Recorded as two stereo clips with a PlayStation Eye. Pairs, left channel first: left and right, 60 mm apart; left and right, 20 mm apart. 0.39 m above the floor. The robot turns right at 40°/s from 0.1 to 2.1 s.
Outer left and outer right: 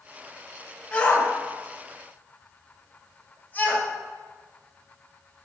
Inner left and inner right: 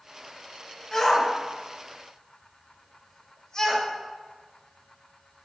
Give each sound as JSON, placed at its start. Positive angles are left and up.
{"t": 0.9, "sound": "a shout", "side_deg": 30, "distance_m": 1.5}